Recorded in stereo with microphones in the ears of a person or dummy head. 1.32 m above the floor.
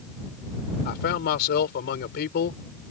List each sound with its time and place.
0.8 s a man speaking: 65° left (ahead or behind)